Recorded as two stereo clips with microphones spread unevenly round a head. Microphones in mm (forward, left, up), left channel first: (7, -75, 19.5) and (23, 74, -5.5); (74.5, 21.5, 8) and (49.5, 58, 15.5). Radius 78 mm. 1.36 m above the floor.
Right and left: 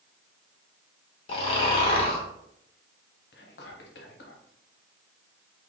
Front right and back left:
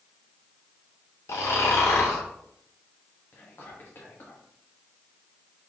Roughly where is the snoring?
Ahead right.